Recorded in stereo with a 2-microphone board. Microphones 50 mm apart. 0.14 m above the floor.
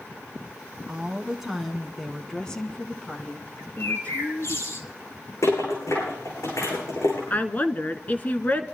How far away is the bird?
About 1.9 m.